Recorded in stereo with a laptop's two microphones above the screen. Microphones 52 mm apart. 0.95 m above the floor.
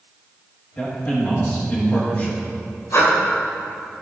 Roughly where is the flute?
No flute in this recording.